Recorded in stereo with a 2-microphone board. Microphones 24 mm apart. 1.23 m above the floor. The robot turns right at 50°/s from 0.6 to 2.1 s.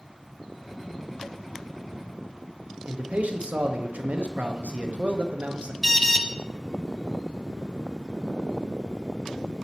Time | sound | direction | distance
2.9 | a man speaking | 85° right | 0.8 m
5.8 | an alarm | centre (ahead or behind) | 0.6 m